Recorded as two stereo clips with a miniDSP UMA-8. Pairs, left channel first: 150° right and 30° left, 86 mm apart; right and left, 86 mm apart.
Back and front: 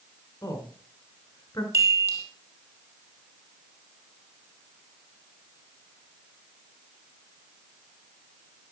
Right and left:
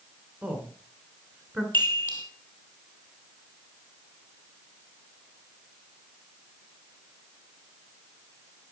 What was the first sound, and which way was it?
A woman speaking, 160° left.